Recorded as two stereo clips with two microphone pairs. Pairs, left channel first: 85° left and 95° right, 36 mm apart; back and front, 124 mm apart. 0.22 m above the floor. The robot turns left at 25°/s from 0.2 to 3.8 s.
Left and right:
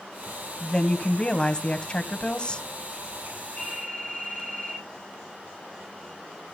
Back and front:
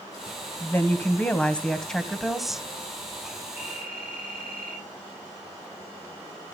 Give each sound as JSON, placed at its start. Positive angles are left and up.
{"t": 0.6, "sound": "a woman speaking", "azimuth_deg": 130, "distance_m": 1.1}
{"t": 3.6, "sound": "a phone ringing", "azimuth_deg": 140, "distance_m": 6.5}